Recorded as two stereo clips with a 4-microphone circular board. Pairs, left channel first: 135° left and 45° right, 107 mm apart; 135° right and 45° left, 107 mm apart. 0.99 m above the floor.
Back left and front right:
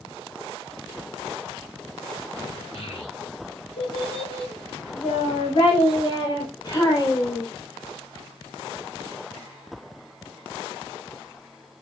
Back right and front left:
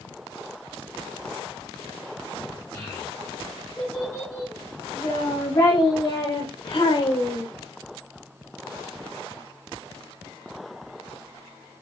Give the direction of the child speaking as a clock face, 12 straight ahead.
7 o'clock.